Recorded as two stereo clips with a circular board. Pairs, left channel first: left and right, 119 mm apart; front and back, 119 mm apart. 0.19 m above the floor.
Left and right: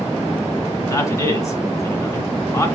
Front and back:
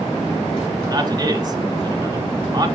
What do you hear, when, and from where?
0.9 s a man speaking: 145° left, 1.7 m